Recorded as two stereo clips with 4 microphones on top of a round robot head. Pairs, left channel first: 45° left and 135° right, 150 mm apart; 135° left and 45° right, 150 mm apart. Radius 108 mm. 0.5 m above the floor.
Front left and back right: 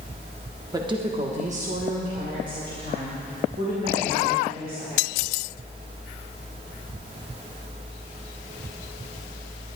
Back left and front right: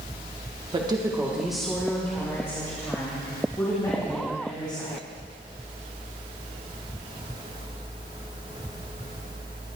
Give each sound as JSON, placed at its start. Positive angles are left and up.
{"t": 0.7, "sound": "a woman speaking", "azimuth_deg": -80, "distance_m": 1.1}